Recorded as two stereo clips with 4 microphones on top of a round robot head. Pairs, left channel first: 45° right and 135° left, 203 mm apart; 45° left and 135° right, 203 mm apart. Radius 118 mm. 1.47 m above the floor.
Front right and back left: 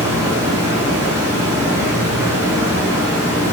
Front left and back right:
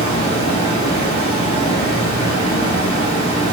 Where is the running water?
70° left, 0.7 m.